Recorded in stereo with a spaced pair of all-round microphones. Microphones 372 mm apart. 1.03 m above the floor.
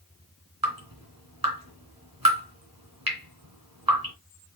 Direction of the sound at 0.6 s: 65° right (ahead or behind).